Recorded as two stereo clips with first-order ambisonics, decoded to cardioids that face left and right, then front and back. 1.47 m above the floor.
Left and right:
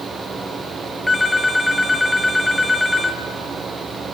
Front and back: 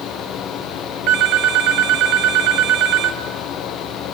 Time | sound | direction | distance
1.1 | a phone ringing | 170° left | 1.0 m